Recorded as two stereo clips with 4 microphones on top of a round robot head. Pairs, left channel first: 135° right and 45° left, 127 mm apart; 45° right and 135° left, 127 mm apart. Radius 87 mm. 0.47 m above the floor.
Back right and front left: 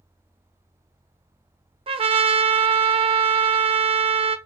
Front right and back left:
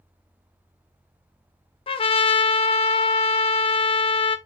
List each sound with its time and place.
1.9 s a trumpet: straight ahead, 0.6 m